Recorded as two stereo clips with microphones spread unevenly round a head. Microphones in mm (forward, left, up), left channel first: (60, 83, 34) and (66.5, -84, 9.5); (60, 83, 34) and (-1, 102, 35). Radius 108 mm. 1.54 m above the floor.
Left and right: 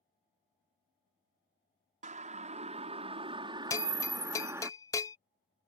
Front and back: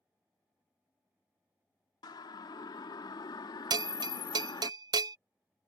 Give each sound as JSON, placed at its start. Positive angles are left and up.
{"t": 2.0, "sound": "a siren", "azimuth_deg": -40}
{"t": 3.7, "sound": "a bell", "azimuth_deg": 165}